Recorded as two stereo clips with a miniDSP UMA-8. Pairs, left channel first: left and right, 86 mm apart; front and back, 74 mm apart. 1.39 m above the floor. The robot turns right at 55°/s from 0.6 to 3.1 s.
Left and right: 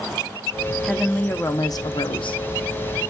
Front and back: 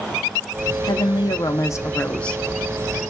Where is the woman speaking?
Straight ahead, 0.7 m; by 2.4 s 85° left, 0.7 m.